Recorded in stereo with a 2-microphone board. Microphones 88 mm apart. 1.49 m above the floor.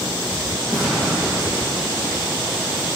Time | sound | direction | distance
0.7 | an explosion | centre (ahead or behind) | 2 m